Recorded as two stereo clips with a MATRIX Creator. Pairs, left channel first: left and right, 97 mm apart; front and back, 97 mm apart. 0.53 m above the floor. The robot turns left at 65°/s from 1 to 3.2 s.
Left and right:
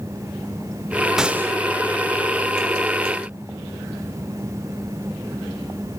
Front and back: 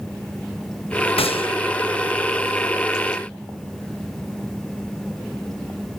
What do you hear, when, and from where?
1.2 s a gunshot: 5° right, 0.5 m; by 1.6 s 30° right, 0.5 m